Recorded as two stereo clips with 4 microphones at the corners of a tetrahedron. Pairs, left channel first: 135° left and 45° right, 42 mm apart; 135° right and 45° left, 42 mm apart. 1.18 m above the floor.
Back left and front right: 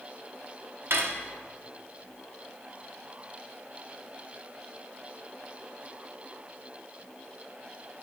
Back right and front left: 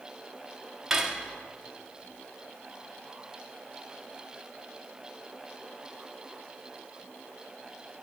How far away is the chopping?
I don't hear chopping.